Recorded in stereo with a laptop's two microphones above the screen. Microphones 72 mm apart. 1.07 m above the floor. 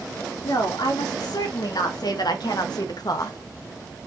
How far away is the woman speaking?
About 3 m.